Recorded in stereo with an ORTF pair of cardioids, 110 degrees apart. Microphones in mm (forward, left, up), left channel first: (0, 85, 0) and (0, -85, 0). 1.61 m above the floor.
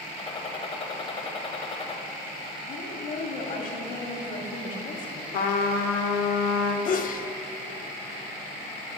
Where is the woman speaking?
50° left, 1.4 m.